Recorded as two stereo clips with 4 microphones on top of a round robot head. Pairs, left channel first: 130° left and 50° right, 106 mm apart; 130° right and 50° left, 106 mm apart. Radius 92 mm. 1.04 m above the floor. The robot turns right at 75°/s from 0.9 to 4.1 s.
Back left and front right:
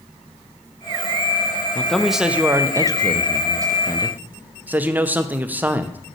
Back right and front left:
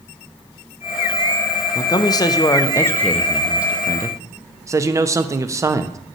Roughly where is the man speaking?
Behind.